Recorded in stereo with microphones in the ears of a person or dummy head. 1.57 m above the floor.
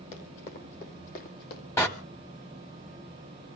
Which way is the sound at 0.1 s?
35° left (ahead or behind).